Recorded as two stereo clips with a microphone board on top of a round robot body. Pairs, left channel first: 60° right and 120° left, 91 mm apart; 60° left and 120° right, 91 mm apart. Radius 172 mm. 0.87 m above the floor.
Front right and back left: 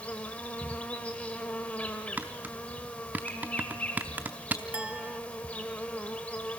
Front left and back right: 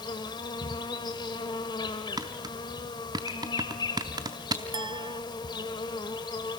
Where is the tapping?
165° right, 0.5 m.